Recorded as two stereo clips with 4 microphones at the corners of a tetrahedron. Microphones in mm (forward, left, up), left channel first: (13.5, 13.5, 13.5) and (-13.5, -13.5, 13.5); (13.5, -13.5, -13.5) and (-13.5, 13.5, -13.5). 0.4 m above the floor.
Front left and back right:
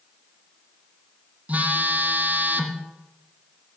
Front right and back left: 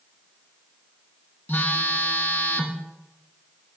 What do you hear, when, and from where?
1.5 s a phone buzzing: 85° right, 1.8 m